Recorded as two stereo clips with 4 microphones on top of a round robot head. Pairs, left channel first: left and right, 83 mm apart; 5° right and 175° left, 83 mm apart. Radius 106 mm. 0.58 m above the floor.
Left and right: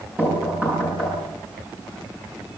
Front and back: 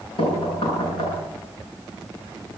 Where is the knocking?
15° right, 8 m.